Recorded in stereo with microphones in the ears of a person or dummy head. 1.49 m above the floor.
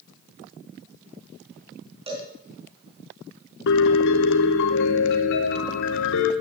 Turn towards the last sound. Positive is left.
turn(degrees=65)  # may be behind; listen again after turning